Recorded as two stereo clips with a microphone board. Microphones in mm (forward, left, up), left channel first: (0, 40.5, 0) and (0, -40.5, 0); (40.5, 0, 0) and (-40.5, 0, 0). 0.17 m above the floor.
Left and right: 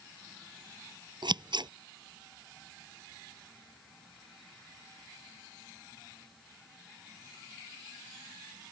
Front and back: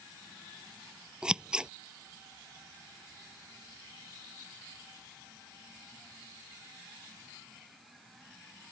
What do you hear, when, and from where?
1.2 s scissors: 100° right